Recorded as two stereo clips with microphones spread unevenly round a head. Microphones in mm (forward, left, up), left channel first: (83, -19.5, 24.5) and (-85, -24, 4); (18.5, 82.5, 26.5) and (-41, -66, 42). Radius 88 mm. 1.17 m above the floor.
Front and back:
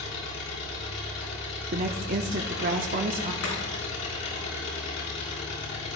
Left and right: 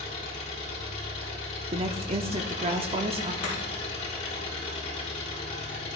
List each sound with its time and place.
0.0 s an engine running: 15° left, 5 m
1.7 s a woman speaking: 165° right, 0.9 m
3.4 s chopping: 15° left, 7 m